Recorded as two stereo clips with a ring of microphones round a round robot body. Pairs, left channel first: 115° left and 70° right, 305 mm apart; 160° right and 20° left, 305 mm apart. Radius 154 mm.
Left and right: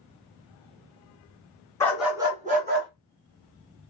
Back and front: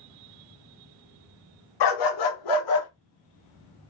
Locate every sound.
1.8 s a dog barking: 165° right, 1.5 m; by 2.9 s 120° right, 2.0 m